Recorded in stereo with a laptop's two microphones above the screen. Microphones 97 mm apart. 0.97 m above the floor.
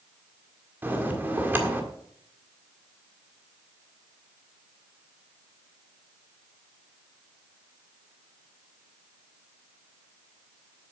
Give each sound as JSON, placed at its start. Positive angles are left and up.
{"t": 0.8, "sound": "a bell", "side_deg": -20, "distance_m": 1.6}